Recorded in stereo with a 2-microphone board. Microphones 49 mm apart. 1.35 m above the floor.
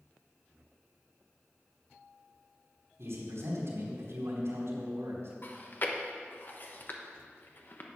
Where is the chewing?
45° left (ahead or behind), 1.1 m.